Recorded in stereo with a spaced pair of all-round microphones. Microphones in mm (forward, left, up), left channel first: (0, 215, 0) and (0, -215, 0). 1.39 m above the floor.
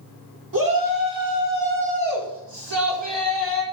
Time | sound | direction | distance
0.5 | a shout | 45° right (ahead or behind) | 4 m